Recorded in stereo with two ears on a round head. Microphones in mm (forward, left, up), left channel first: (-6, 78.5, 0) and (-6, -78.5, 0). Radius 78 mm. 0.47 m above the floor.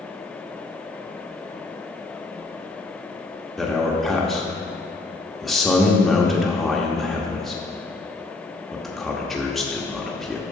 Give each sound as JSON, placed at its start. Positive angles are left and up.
{"t": 3.6, "sound": "a man speaking", "side_deg": 0, "distance_m": 0.8}